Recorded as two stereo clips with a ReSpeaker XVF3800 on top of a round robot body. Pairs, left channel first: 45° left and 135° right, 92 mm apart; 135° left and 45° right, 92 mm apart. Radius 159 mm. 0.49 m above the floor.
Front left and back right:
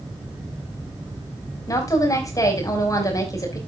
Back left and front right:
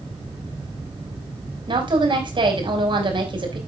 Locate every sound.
1.7 s a woman speaking: 10° right, 4.5 m